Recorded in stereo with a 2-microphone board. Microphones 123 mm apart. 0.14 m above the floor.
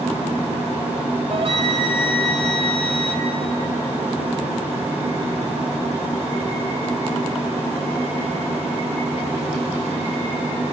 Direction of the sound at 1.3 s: 50° right (ahead or behind).